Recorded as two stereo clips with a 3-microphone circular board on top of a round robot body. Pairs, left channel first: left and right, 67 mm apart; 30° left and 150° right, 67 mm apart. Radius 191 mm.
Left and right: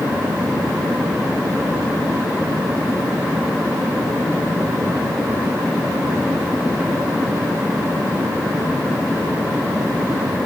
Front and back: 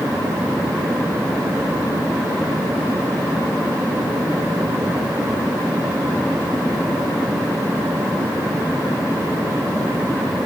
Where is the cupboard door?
I don't hear a cupboard door.